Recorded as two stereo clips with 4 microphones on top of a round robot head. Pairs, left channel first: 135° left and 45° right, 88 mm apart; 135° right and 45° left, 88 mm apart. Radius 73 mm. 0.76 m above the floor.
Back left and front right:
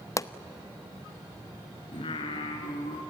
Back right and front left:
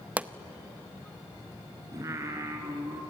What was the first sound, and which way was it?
A pop, 110° left.